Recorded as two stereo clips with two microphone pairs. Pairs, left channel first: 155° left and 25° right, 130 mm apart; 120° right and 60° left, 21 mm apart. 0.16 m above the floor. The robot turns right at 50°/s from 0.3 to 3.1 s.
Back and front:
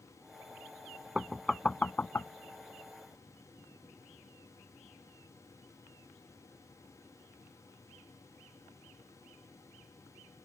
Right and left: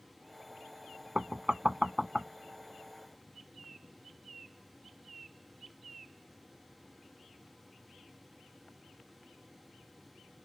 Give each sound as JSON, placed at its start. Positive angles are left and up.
{"t": 1.1, "sound": "knocking", "azimuth_deg": 55}